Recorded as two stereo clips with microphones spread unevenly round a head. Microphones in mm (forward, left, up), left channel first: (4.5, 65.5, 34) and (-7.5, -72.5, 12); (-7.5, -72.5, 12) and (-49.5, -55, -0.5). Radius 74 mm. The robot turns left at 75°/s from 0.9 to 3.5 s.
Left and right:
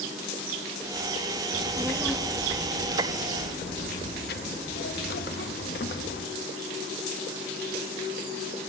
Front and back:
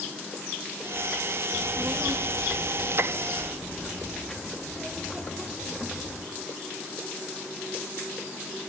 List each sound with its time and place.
1.5 s a child speaking: 150° right, 1.3 m; by 6.2 s 65° left, 1.3 m